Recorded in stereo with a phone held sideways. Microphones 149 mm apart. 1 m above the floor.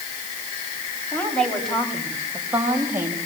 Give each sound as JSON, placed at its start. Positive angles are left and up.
{"t": 1.1, "sound": "a woman speaking", "side_deg": 10, "distance_m": 6.5}